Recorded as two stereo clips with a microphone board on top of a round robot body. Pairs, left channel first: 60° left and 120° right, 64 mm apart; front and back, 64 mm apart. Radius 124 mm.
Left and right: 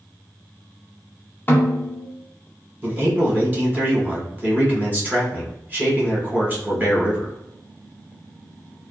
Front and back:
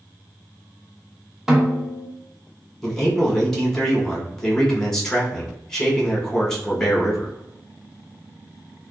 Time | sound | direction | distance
1.5 | a snare drum | 100° left | 0.9 m
2.8 | a man speaking | 75° right | 1.4 m